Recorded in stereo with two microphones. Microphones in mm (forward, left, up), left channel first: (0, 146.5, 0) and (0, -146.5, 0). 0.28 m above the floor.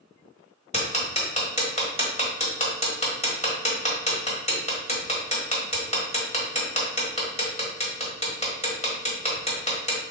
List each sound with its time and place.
0.7 s ticking: 20° left (ahead or behind), 1.2 m